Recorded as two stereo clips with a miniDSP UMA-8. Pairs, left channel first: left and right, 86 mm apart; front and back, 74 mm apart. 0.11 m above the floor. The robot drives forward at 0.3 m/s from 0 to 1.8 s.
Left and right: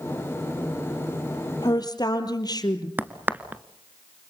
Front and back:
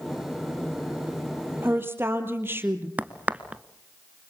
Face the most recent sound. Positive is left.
turn(degrees=-135)